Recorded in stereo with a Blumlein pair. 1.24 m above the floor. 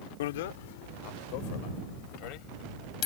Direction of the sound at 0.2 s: 55° left.